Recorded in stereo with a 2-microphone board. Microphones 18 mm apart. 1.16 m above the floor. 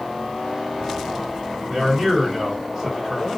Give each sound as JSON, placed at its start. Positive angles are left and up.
{"t": 1.7, "sound": "a man speaking", "side_deg": -40, "distance_m": 1.0}